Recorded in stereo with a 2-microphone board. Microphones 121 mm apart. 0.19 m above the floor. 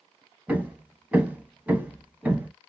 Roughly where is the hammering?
Centre.